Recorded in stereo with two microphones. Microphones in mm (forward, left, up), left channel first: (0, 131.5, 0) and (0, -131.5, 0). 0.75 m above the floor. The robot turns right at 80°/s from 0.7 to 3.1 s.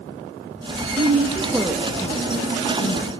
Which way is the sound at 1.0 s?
35° right (ahead or behind).